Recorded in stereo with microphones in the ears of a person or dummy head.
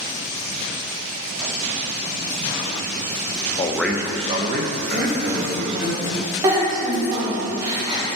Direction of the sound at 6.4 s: 15° right (ahead or behind).